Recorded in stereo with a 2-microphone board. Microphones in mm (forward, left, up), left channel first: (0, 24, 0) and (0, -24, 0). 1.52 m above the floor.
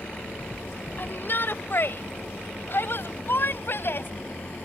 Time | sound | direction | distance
1.0 | a shout | 50° left (ahead or behind) | ?